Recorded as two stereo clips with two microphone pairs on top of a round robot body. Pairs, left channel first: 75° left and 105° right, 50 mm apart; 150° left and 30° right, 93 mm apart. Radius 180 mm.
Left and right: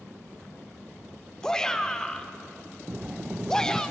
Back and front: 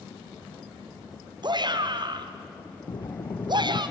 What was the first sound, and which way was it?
A shout, straight ahead.